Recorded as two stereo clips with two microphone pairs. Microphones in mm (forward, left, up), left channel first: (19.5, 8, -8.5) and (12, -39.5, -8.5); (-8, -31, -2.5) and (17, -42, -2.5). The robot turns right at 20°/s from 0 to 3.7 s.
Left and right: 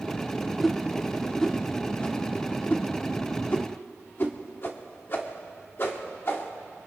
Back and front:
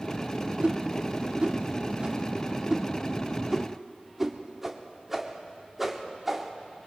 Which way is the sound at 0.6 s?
10° right.